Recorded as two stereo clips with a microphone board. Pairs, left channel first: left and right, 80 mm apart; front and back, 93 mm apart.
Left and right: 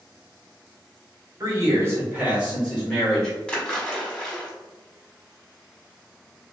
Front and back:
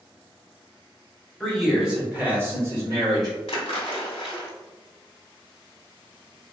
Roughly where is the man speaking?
Right.